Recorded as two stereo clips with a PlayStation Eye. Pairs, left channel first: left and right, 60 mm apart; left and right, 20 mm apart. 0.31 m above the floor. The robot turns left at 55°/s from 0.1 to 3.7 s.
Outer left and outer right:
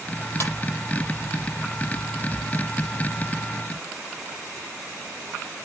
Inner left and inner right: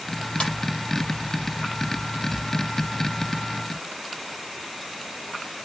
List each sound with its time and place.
0.4 s a ringtone: 50° left (ahead or behind), 7 m; by 0.5 s 55° left (ahead or behind), 7 m